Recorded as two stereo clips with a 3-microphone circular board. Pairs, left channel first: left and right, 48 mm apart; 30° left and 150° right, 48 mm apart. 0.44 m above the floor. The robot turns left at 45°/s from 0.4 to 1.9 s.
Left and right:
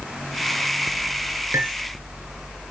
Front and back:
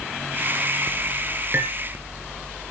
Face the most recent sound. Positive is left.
turn(degrees=-115)